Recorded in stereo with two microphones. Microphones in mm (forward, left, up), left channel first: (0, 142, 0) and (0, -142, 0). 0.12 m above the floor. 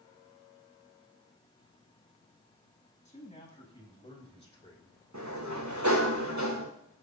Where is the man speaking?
25° left (ahead or behind), 6.5 m; by 5.0 s 20° left (ahead or behind), 5 m.